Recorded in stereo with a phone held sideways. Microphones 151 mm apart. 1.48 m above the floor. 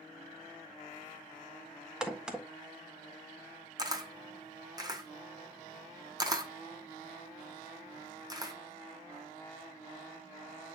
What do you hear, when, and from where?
2.0 s a crack: 5° right (ahead or behind), 1.3 m
3.8 s a camera shutter: 25° right (ahead or behind), 1.2 m